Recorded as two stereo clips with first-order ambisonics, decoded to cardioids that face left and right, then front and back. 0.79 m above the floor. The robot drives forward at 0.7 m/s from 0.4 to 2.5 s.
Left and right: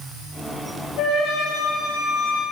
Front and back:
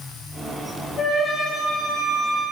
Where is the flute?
65° left, 4.5 m; by 2.4 s 75° left, 4 m.